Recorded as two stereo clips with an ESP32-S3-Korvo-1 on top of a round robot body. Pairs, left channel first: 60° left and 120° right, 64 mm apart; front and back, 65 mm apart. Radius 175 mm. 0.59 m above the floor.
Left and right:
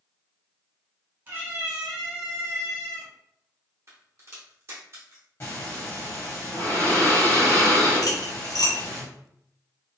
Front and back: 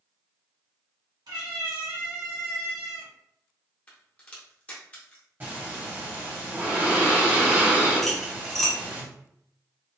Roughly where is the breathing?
Behind left.